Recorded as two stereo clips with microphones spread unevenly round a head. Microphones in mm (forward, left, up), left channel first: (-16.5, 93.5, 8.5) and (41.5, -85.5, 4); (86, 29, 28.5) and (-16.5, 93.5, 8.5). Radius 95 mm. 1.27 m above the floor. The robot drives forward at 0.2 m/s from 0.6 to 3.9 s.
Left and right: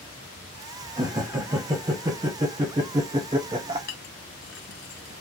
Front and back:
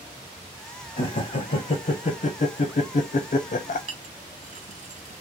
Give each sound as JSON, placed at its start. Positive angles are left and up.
{"t": 1.0, "sound": "laughter", "azimuth_deg": -5, "distance_m": 1.1}
{"t": 3.9, "sound": "a clink", "azimuth_deg": 130, "distance_m": 0.7}